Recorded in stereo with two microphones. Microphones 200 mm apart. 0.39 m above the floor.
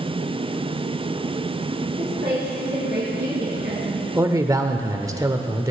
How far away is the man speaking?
About 0.8 m.